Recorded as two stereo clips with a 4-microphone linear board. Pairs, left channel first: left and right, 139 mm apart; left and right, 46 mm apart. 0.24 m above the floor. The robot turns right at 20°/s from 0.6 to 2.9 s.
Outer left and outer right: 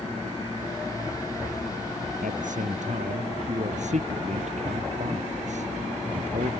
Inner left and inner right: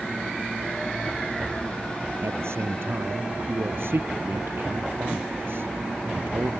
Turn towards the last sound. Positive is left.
turn(degrees=-60)  # may be behind; listen again after turning